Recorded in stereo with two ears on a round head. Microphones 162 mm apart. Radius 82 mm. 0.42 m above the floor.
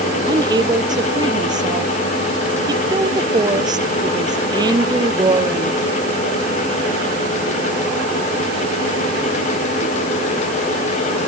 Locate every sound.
0.3 s a woman speaking: 25° right (ahead or behind)